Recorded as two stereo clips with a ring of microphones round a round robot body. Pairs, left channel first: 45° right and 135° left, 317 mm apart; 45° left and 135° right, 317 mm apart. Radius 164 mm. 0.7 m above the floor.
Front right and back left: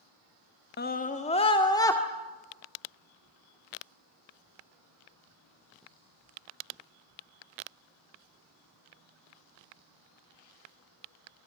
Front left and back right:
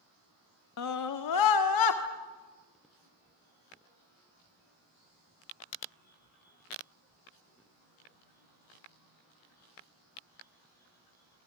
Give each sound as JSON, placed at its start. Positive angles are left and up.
{"t": 0.8, "sound": "a scream", "azimuth_deg": 10, "distance_m": 1.2}